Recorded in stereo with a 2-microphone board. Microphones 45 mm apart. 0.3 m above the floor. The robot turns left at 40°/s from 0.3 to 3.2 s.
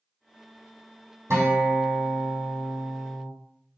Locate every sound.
1.3 s a guitar: 80° right, 1.6 m; by 3.3 s 155° right, 1.6 m